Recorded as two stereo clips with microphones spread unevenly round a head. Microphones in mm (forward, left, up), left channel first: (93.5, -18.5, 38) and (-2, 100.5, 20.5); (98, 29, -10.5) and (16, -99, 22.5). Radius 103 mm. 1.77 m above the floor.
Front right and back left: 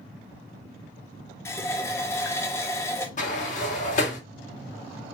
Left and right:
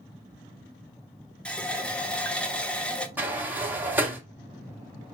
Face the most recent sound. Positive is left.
turn(degrees=-60)